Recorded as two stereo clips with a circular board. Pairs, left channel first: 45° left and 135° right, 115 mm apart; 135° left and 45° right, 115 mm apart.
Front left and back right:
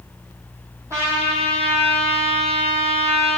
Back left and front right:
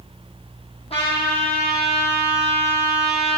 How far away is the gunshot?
No gunshot in this recording.